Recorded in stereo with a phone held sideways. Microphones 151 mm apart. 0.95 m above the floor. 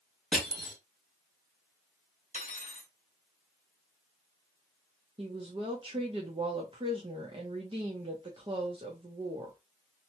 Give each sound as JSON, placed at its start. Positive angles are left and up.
{"t": 0.3, "sound": "crushing", "side_deg": 5, "distance_m": 1.8}
{"t": 2.3, "sound": "cutlery clinking", "side_deg": 55, "distance_m": 0.8}
{"t": 5.2, "sound": "a woman speaking", "side_deg": -35, "distance_m": 0.8}